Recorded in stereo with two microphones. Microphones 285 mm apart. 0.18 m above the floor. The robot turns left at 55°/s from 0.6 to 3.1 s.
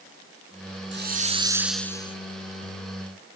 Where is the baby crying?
I don't hear a baby crying.